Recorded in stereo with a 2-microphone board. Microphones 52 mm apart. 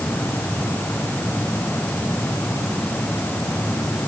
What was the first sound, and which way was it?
Only background noise.